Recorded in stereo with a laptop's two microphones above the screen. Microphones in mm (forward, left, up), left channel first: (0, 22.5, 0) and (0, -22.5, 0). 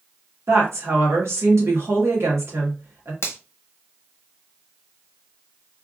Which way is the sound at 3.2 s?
65° left (ahead or behind).